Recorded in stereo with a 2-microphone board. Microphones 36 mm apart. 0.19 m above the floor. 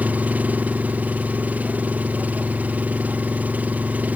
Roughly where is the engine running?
Right.